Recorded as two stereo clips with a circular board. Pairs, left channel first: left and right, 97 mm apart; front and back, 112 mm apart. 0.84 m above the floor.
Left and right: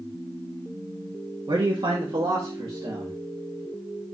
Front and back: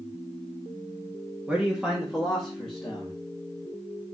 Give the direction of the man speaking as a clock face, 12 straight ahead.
3 o'clock.